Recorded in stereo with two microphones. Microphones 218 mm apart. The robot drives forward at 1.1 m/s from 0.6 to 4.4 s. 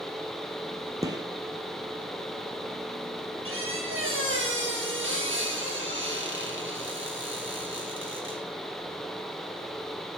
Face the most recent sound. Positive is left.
turn(degrees=-60)  # may be behind; listen again after turning